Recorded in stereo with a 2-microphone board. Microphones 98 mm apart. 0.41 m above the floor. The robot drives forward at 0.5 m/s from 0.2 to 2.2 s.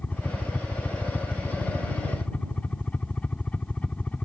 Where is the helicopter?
15° left (ahead or behind).